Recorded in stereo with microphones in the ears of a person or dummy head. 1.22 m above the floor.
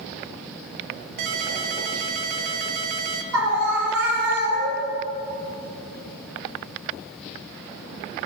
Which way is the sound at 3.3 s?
85° right.